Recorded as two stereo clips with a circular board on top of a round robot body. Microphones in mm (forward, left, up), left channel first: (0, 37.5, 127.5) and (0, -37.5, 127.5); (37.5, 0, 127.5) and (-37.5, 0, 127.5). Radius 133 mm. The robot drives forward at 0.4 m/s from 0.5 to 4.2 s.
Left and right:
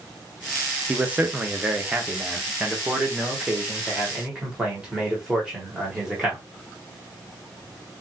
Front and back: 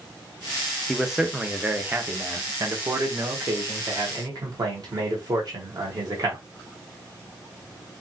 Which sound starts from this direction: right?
A man speaking, at 0.9 s.